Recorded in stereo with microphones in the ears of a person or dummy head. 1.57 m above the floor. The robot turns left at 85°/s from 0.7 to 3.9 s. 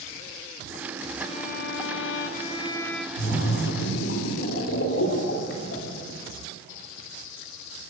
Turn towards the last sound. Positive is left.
turn(degrees=70)